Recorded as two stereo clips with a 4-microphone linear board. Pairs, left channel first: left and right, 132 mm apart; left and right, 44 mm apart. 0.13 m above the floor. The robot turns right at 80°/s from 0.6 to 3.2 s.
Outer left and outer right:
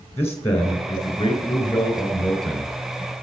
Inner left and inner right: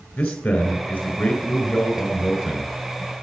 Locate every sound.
0.2 s a man speaking: 30° left, 1.9 m; by 2.7 s 160° right, 1.9 m